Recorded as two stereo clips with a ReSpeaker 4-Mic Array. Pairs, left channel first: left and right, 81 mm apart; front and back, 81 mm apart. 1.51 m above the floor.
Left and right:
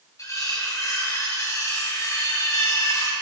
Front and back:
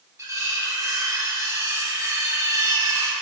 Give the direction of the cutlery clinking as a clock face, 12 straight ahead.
7 o'clock.